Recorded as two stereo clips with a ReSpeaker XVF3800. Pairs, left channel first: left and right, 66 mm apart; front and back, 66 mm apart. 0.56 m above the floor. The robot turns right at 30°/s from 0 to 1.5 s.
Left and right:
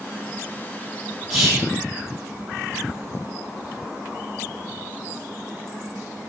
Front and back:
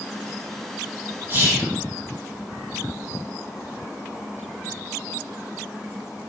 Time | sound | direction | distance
1.3 | whispering | straight behind | 1.1 m